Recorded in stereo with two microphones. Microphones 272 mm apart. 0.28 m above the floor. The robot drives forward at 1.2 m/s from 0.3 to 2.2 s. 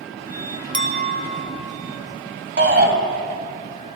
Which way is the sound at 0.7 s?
45° right (ahead or behind).